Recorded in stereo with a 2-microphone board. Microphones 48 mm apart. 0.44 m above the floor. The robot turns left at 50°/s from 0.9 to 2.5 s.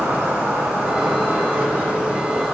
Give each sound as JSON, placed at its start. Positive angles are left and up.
{"t": 0.0, "sound": "an insect", "azimuth_deg": -90, "distance_m": 2.5}